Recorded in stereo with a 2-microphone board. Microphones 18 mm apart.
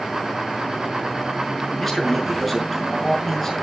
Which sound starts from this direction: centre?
A man speaking, at 1.8 s.